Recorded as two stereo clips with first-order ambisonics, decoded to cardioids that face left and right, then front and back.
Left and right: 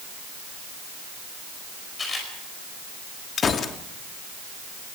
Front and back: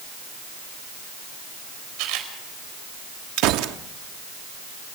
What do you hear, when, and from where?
2.0 s a camera shutter: 160° left, 5 m
3.4 s a gunshot: 155° left, 1.2 m